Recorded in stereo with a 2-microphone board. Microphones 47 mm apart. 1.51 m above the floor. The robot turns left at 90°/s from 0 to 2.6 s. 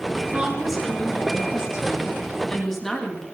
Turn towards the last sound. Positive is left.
turn(degrees=10)